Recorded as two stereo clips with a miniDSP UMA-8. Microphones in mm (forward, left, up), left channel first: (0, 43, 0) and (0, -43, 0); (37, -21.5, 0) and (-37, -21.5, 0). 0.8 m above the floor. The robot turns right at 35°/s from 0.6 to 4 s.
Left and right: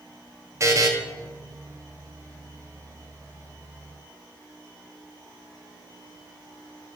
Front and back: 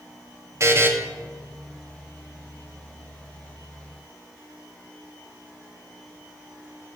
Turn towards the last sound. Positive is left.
turn(degrees=-20)